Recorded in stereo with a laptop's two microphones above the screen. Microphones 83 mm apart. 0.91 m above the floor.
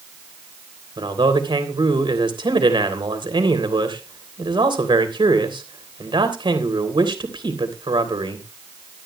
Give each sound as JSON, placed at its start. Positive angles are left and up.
{"t": 1.0, "sound": "a man speaking", "side_deg": -75, "distance_m": 3.0}